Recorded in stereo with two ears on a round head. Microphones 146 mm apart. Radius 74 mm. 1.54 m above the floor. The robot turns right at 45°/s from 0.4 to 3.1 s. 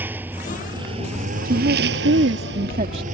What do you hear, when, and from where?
0.0 s a lawn mower: 170° right; by 3.1 s 45° right
1.4 s a woman speaking: 105° right; by 3.0 s 35° right